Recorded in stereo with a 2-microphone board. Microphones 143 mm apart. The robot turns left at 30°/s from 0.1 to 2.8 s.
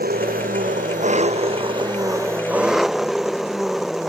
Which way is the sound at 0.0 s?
95° right.